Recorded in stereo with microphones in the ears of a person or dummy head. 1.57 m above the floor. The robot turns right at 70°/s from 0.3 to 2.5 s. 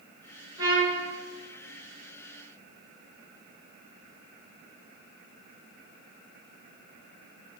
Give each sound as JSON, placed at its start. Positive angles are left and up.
{"t": 0.6, "sound": "a trumpet", "azimuth_deg": -25, "distance_m": 4.5}